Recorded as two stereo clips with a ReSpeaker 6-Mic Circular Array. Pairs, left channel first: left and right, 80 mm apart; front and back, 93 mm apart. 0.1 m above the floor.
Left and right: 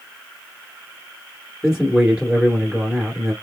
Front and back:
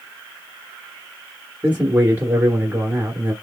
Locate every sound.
1.6 s a man speaking: 160° right, 1.3 m